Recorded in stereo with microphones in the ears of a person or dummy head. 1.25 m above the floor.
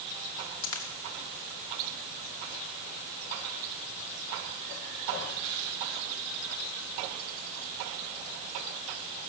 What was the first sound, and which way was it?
A dropped coin, 80° left.